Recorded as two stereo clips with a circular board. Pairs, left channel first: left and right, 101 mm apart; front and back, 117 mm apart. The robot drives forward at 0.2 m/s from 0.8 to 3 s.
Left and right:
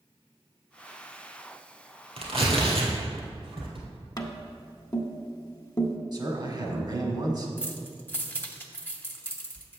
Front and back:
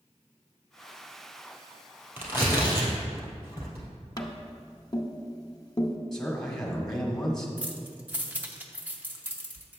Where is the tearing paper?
105° right, 2 m; by 3.9 s 110° right, 2 m.